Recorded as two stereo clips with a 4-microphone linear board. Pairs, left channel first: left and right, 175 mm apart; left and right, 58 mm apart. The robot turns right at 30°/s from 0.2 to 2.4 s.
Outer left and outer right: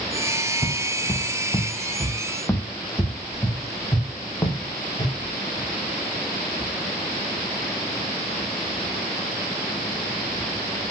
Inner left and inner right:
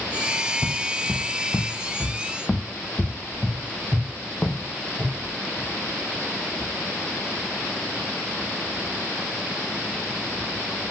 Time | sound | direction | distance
0.6 | footsteps | 25° left (ahead or behind) | 1.0 m